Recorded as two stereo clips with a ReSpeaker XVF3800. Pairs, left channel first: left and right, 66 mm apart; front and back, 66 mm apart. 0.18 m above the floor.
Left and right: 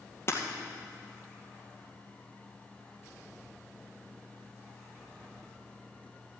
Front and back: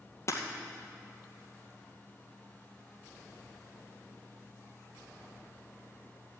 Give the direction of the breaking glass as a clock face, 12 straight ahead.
11 o'clock.